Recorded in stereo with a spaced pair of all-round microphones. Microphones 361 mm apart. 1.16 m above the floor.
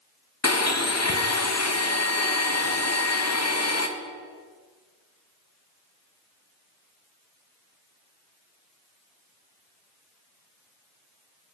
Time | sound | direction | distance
0.4 | a blender | 45° left (ahead or behind) | 0.8 m